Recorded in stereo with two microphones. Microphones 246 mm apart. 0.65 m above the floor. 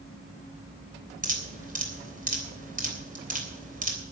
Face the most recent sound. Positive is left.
turn(degrees=-35)  # may be behind; listen again after turning